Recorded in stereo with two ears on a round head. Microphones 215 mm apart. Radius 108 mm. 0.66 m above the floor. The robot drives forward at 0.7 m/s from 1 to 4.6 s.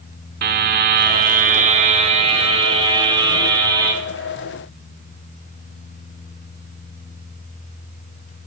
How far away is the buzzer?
About 1.2 m.